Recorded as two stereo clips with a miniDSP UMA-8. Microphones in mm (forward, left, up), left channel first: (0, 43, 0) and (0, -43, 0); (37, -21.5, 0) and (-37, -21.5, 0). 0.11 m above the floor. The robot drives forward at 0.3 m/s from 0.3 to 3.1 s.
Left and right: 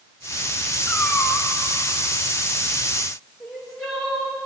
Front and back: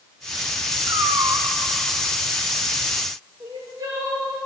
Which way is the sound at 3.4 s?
175° left.